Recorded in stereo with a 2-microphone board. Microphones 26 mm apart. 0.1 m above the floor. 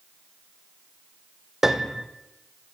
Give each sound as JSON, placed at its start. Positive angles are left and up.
{"t": 1.6, "sound": "a piano", "side_deg": -15, "distance_m": 1.8}